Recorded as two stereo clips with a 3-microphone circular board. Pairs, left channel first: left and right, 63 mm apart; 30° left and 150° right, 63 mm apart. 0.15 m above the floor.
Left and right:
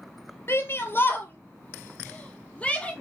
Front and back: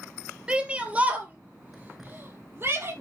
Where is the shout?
135° left, 3 m; by 2.9 s 160° left, 4 m.